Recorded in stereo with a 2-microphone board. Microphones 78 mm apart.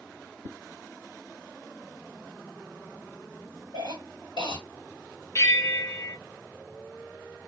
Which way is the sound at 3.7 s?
75° left (ahead or behind).